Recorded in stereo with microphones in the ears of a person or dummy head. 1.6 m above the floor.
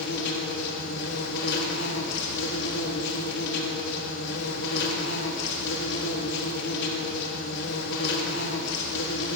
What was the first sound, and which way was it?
An insect, 65° left (ahead or behind).